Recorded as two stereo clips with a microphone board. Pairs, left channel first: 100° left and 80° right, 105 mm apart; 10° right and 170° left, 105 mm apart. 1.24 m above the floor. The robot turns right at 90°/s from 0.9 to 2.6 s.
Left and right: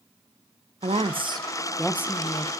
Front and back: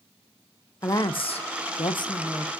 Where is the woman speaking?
70° right, 0.7 m; by 2.5 s 75° left, 0.7 m.